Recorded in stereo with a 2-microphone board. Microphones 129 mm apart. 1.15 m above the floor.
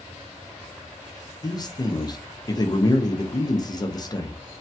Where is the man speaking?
30° left (ahead or behind), 0.6 m.